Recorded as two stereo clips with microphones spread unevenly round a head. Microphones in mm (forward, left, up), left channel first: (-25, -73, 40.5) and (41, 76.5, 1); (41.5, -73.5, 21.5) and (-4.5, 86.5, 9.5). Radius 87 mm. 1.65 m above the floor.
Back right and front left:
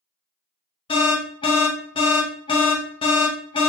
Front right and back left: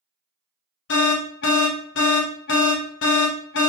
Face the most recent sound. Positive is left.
turn(degrees=-55)